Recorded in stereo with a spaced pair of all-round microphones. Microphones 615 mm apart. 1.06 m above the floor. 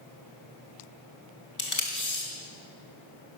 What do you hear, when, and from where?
1.6 s tape being pulled: 30° left (ahead or behind), 1.4 m